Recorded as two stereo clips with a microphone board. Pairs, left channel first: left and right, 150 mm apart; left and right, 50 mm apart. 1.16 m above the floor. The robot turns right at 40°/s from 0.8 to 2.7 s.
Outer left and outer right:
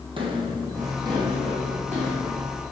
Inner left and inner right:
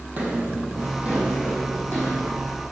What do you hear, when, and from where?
0.2 s footsteps: 35° right (ahead or behind), 1.9 m; by 2.3 s 60° right (ahead or behind), 4 m